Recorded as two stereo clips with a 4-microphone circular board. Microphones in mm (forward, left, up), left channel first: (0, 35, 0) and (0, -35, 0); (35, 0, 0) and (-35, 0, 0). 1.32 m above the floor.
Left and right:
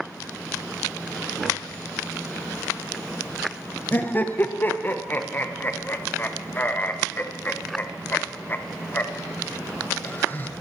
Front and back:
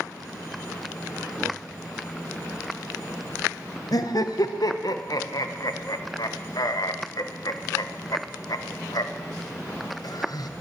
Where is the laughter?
30° left, 0.9 m.